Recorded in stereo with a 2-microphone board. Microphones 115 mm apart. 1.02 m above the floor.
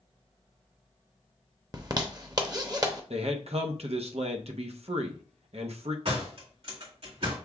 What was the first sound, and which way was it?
A zipper, 35° right (ahead or behind).